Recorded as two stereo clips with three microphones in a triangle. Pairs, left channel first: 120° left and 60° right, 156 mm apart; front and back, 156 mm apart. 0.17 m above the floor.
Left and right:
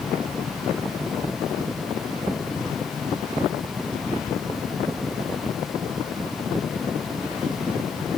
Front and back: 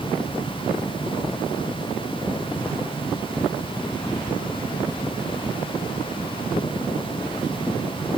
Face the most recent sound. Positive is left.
No sound to turn to.